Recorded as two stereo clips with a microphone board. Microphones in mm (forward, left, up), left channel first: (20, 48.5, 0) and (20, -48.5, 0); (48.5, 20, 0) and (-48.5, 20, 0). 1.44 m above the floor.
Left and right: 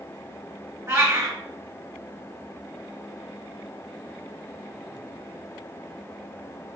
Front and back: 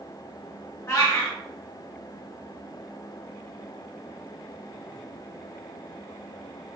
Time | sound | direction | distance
0.9 | a cat meowing | 45° right | 1.0 m